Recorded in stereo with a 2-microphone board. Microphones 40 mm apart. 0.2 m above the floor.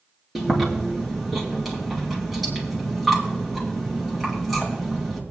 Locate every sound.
0.3 s chewing: centre (ahead or behind), 3 m